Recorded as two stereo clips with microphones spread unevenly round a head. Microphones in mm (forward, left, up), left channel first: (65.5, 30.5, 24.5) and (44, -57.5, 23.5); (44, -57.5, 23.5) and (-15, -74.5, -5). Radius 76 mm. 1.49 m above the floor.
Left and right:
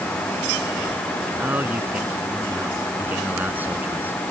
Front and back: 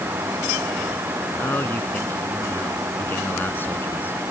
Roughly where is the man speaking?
Ahead right.